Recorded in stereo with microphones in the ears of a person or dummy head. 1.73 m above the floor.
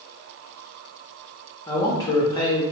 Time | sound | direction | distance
1.7 | a man speaking | 20° left (ahead or behind) | 0.8 m